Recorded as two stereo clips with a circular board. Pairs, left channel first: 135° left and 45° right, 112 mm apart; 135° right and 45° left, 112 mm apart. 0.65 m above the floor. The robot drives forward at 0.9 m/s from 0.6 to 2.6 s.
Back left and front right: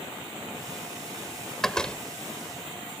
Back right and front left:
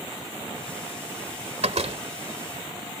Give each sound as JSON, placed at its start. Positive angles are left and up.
{"t": 1.6, "sound": "a door slam", "azimuth_deg": 50}